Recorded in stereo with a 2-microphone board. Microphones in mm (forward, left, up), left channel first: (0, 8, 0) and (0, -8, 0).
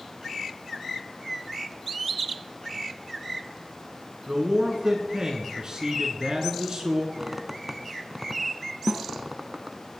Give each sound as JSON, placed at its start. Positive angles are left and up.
{"t": 4.3, "sound": "a man speaking", "side_deg": -40, "distance_m": 1.8}
{"t": 7.2, "sound": "a squeak", "side_deg": -15, "distance_m": 0.7}
{"t": 8.9, "sound": "a snare drum", "side_deg": -30, "distance_m": 1.0}